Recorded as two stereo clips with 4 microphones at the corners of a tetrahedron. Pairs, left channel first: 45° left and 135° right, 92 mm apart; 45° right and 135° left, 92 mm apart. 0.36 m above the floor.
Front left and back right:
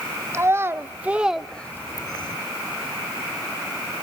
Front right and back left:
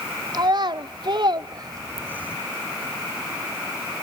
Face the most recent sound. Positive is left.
turn(degrees=60)